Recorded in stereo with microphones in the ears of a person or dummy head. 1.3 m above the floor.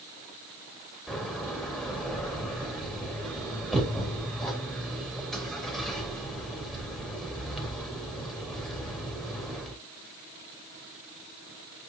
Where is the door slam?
Centre (ahead or behind), 3 m.